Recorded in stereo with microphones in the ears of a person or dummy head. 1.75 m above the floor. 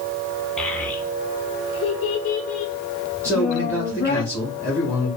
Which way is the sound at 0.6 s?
5° left (ahead or behind).